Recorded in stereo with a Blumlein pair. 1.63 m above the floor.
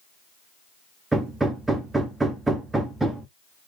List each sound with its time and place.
1.1 s hammering: 5° right, 0.5 m